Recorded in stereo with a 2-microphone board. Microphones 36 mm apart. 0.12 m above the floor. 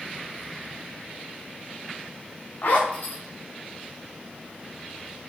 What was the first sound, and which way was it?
A zipper, 55° left (ahead or behind).